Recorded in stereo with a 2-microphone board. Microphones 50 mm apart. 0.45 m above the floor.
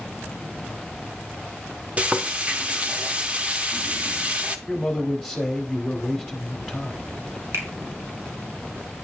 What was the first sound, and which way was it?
Frying, 30° right (ahead or behind).